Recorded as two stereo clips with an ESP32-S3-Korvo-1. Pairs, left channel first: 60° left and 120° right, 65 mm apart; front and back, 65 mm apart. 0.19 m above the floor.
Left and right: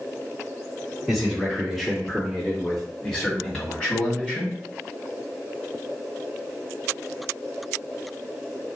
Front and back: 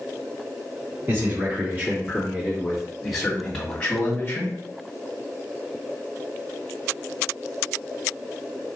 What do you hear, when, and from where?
1.1 s a man speaking: 155° left, 1.9 m; by 4.6 s 5° right, 1.6 m